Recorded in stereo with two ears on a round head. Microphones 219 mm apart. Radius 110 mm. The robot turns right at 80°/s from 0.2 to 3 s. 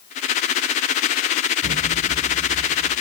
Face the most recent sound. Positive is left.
turn(degrees=15)